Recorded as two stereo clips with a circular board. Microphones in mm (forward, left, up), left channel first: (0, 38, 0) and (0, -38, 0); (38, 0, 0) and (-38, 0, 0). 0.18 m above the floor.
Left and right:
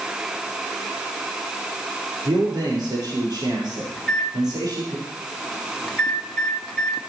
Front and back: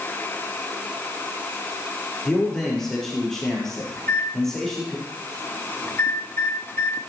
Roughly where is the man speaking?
Right.